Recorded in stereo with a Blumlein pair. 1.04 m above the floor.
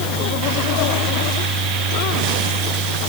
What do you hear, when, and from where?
0.0 s a fan: 35° right, 4 m